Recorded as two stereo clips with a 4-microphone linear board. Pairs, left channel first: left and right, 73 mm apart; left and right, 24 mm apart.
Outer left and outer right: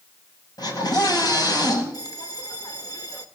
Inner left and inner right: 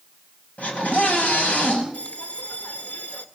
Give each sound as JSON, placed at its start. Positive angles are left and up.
{"t": 0.6, "sound": "a scream", "side_deg": 70, "distance_m": 8.0}
{"t": 1.9, "sound": "a bell", "side_deg": 60, "distance_m": 1.6}